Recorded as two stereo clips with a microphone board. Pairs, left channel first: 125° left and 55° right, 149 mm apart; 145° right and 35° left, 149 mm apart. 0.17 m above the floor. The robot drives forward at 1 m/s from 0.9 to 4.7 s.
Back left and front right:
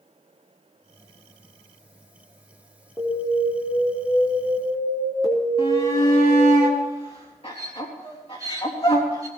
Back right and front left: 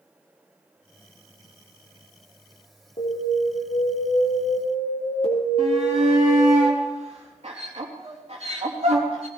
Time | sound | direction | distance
3.0 | an alarm | 170° right | 2 m
5.6 | a shout | 80° left | 4 m